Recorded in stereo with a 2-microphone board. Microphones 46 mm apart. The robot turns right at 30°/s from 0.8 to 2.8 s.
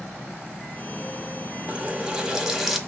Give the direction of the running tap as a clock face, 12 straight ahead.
1 o'clock.